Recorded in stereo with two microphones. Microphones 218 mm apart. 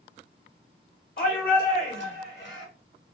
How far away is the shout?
About 1.2 m.